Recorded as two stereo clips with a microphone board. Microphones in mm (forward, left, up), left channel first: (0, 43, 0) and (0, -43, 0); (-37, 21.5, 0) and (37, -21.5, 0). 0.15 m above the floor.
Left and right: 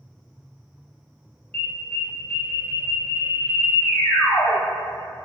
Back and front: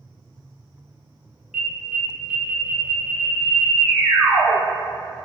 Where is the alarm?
45° left, 0.9 m.